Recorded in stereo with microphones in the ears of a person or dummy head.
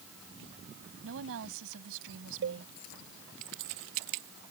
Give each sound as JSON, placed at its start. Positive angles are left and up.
{"t": 1.0, "sound": "a woman speaking", "side_deg": -75}
{"t": 2.4, "sound": "a cowbell", "side_deg": -60}